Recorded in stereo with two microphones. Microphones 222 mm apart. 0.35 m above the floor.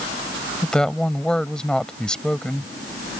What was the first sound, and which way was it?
A woman speaking, 5° left (ahead or behind).